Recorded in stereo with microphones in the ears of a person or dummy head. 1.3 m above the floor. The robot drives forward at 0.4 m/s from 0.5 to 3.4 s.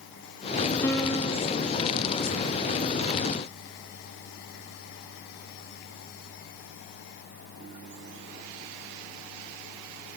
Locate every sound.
0.8 s a piano: 15° left (ahead or behind), 0.7 m